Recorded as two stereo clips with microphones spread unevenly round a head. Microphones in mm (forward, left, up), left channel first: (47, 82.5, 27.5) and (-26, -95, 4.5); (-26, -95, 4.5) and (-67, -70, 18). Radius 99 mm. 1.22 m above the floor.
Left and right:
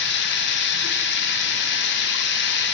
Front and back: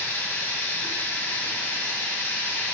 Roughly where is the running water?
Ahead left.